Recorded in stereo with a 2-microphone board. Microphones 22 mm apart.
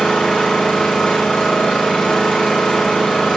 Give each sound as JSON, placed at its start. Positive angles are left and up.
{"t": 0.0, "sound": "an engine running", "side_deg": 55, "distance_m": 7.0}